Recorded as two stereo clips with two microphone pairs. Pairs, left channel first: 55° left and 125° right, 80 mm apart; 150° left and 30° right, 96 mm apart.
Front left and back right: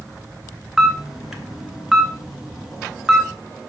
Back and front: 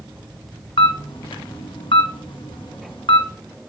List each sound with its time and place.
0.8 s a camera shutter: 155° left, 1.0 m